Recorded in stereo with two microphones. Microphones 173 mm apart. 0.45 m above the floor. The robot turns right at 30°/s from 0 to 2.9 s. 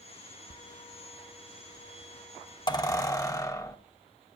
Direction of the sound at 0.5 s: 80° left.